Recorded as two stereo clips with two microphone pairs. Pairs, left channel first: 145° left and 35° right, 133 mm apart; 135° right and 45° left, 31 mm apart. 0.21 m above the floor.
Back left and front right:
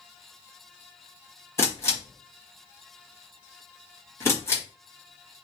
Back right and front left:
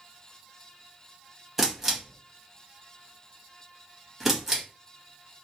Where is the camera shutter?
110° left, 1.1 m.